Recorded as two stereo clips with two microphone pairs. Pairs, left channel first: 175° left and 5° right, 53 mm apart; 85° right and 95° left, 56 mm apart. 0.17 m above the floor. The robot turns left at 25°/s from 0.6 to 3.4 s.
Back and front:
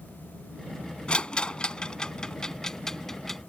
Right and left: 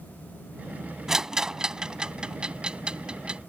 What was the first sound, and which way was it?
A rattle, 150° left.